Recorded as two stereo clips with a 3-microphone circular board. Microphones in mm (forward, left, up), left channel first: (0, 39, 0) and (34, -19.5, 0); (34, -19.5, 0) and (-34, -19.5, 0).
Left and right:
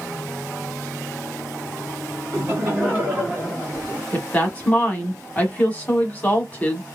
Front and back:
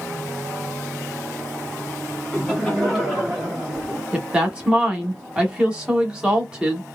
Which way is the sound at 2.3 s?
80° right.